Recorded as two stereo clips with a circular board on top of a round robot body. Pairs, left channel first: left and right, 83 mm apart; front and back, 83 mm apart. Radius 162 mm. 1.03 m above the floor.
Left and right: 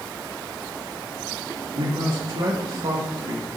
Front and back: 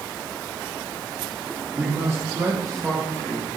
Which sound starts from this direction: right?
A man speaking, at 1.8 s.